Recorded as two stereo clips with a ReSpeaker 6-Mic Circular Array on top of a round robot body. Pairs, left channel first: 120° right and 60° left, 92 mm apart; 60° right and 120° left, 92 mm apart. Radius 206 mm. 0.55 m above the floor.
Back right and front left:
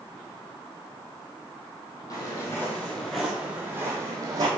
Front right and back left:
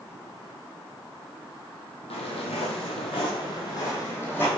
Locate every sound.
2.1 s footsteps: 65° right, 1.8 m; by 4.5 s 10° left, 2 m